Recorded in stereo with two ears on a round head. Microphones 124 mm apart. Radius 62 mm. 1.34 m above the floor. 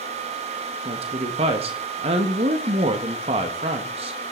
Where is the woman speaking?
45° right (ahead or behind), 1.6 m.